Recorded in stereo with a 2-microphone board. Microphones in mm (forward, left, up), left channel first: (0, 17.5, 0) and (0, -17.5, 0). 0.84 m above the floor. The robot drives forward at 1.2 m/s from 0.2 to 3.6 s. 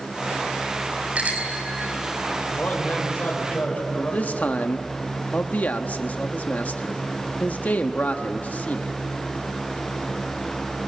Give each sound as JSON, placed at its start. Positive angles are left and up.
{"t": 1.1, "sound": "a bicycle bell", "side_deg": -40, "distance_m": 4.5}
{"t": 2.5, "sound": "a man speaking", "side_deg": 55, "distance_m": 4.0}
{"t": 3.9, "sound": "a man speaking", "side_deg": 50, "distance_m": 1.1}